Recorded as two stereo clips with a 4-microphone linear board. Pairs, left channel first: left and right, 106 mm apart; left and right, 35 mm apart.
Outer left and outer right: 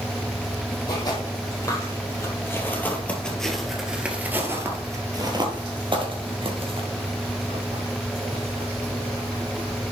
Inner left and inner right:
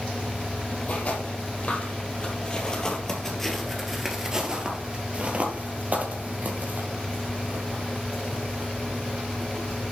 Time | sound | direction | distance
0.9 | footsteps | 40° left (ahead or behind) | 3.5 m